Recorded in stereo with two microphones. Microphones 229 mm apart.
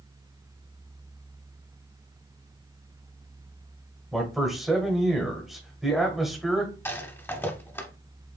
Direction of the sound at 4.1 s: Centre (ahead or behind).